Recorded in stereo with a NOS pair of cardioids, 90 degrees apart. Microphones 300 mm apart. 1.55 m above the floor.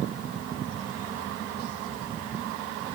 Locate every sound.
Only background noise.